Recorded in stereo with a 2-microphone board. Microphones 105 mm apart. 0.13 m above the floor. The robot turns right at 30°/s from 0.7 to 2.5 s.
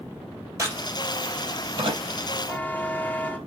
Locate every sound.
0.6 s a crack: 25° right (ahead or behind), 3.5 m; by 2.0 s 60° right (ahead or behind), 3.5 m
2.5 s a buzzer: 15° left (ahead or behind), 2.0 m